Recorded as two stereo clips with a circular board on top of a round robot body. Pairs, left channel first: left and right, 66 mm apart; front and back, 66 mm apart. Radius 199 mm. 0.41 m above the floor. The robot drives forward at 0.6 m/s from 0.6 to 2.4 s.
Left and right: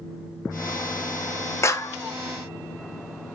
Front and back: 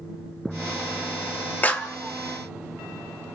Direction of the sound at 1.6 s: 60° left.